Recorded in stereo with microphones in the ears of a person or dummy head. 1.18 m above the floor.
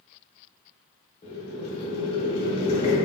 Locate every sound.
1.2 s boiling: 25° left (ahead or behind), 0.8 m